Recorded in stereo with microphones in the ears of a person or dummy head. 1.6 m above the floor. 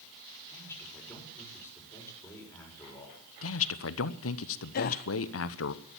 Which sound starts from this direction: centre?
A man speaking, at 0.5 s.